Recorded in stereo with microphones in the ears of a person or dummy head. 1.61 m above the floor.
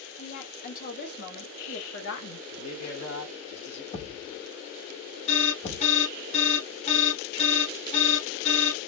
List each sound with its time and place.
0.2 s a woman speaking: 45° left (ahead or behind), 2.5 m; by 2.4 s 60° left (ahead or behind), 1.5 m
2.5 s a man speaking: 75° left (ahead or behind), 2 m
3.9 s a thud: 40° left (ahead or behind), 2.5 m
5.3 s an alarm: 35° left (ahead or behind), 1.4 m